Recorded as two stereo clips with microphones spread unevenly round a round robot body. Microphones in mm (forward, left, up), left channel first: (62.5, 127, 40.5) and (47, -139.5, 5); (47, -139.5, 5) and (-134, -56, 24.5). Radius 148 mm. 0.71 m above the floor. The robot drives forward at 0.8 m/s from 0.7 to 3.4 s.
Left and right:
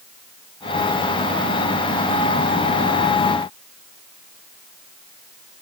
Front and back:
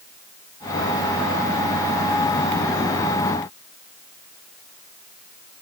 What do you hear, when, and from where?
Only background noise.